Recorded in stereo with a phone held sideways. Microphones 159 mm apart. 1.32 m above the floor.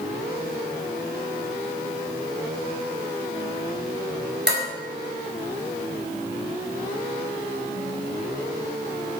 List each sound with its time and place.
4.5 s dishes clattering: 80° right, 4 m